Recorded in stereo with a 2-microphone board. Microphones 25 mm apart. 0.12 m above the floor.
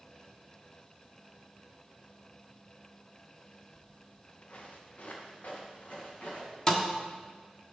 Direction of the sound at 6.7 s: 25° left (ahead or behind).